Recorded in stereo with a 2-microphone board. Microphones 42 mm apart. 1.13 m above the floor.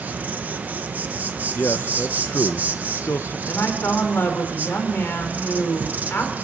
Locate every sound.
0.0 s an insect: 45° right (ahead or behind), 1.0 m
1.6 s a man speaking: 65° left (ahead or behind), 0.5 m
3.5 s a woman speaking: 60° left (ahead or behind), 3.5 m